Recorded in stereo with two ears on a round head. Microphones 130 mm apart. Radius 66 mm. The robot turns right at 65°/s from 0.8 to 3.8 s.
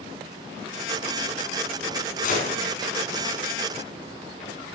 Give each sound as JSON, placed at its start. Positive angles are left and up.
{"t": 2.2, "sound": "a gunshot", "side_deg": 65, "distance_m": 4.5}